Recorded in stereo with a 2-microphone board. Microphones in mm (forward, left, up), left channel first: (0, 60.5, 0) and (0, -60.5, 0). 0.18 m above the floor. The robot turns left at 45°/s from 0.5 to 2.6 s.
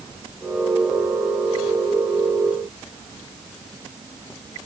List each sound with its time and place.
Only background noise.